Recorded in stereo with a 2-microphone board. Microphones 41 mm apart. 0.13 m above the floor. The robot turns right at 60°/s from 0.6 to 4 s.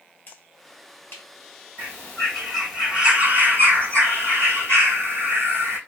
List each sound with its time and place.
0.3 s a finger snap: 50° left (ahead or behind), 1.8 m; by 1.2 s 65° left (ahead or behind), 1.8 m
1.8 s a bird: 140° left, 2.5 m; by 5.8 s 90° right, 2.5 m